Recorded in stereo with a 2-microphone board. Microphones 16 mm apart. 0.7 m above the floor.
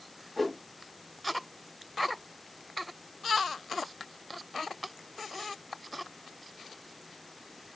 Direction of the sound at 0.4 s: 15° left (ahead or behind).